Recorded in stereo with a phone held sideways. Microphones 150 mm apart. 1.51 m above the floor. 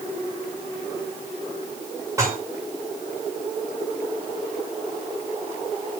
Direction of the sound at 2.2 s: 20° right (ahead or behind).